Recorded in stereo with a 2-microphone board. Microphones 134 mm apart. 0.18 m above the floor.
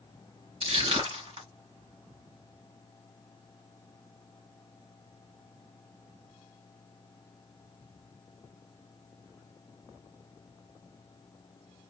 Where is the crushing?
55° right (ahead or behind), 3 m.